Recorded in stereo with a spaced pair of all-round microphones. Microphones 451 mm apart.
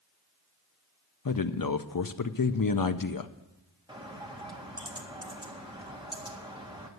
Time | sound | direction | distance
1.2 | a man speaking | 50° left (ahead or behind) | 0.5 m
3.9 | a bird | 10° right (ahead or behind) | 1.7 m